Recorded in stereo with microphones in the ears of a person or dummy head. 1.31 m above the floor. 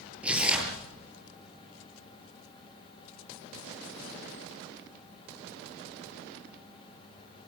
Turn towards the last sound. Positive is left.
turn(degrees=-5)  # may be behind; listen again after turning